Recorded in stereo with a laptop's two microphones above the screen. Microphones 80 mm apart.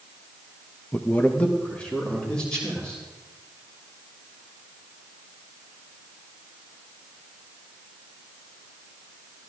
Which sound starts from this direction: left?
A man speaking, at 0.9 s.